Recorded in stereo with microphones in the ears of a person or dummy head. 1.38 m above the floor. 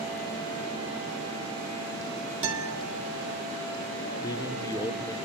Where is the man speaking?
20° left (ahead or behind), 0.9 m.